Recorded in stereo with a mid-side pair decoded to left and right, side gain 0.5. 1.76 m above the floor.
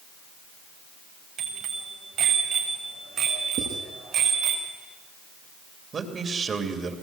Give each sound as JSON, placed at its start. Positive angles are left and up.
{"t": 1.4, "sound": "a bicycle bell", "azimuth_deg": -60, "distance_m": 7.5}
{"t": 3.6, "sound": "writing", "azimuth_deg": -60, "distance_m": 8.5}
{"t": 5.9, "sound": "a man speaking", "azimuth_deg": -40, "distance_m": 3.0}